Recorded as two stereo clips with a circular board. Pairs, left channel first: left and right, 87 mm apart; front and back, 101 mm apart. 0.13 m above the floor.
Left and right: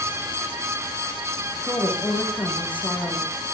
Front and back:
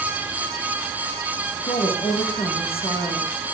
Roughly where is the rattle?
No rattle in this recording.